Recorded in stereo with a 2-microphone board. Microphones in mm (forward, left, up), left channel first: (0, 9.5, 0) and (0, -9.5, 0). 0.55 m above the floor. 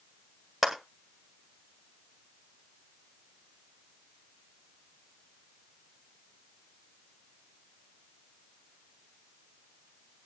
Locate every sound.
0.6 s a clap: 20° right (ahead or behind), 2 m